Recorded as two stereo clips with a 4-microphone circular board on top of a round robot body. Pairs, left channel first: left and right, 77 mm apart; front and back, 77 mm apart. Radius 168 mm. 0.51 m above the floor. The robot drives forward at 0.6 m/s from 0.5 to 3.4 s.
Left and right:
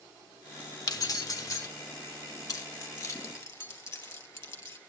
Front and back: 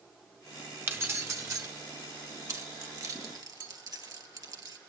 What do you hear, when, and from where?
0.9 s keys jangling: 120° left, 1.3 m; by 1.7 s 135° left, 1.5 m
2.5 s keys jangling: 135° left, 1.6 m; by 4.8 s 145° left, 2 m